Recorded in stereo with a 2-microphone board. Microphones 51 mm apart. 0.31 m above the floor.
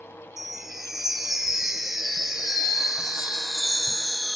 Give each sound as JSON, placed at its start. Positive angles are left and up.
{"t": 0.4, "sound": "a chime", "side_deg": -5, "distance_m": 0.7}